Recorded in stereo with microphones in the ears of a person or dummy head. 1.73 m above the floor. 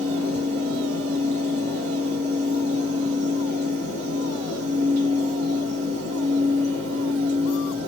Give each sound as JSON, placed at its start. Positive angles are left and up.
{"t": 0.0, "sound": "a fan", "side_deg": -35, "distance_m": 1.0}